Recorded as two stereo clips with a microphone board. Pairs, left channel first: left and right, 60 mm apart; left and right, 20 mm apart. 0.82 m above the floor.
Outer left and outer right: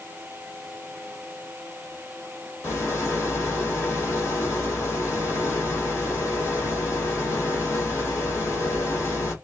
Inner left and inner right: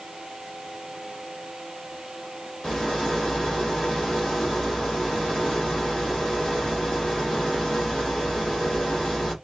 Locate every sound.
2.6 s a rattle: 50° left (ahead or behind), 1.7 m